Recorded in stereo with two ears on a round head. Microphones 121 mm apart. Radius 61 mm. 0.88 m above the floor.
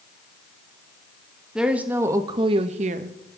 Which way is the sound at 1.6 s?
5° right (ahead or behind).